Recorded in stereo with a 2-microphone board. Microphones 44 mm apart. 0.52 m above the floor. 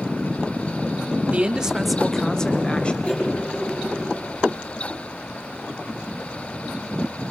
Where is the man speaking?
30° right (ahead or behind), 1.3 m; by 2.9 s 25° left (ahead or behind), 2.5 m.